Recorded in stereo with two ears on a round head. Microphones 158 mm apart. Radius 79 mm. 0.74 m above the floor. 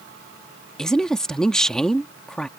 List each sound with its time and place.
0.8 s a woman speaking: 5° left (ahead or behind)